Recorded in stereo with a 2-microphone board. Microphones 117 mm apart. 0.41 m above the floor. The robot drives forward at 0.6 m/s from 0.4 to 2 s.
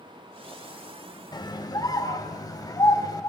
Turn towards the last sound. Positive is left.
turn(degrees=30)  # may be behind; listen again after turning